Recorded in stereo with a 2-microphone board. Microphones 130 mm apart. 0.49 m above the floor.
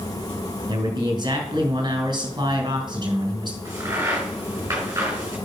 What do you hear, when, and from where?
0.7 s a man speaking: 35° right (ahead or behind), 4 m
3.6 s a crack: 20° right (ahead or behind), 5.5 m